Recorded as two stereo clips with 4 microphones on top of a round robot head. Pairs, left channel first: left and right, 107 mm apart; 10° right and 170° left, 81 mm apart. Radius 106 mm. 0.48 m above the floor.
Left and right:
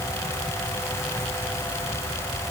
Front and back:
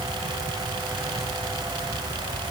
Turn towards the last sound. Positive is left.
No sound to turn to.